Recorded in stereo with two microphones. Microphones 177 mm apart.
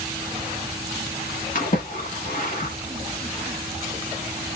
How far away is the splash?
About 1.1 m.